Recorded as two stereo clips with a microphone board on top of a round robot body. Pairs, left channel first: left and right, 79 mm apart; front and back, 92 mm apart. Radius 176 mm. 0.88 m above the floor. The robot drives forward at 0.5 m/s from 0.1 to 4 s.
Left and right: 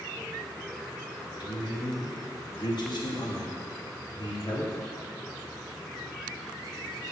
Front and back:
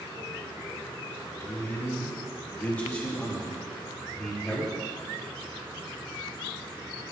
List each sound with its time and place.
1.4 s a man speaking: 60° left, 3 m; by 4.7 s 90° left, 2.5 m